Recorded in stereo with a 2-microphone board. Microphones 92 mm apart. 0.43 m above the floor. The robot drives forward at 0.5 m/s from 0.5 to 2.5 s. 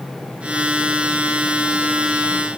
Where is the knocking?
No knocking in this recording.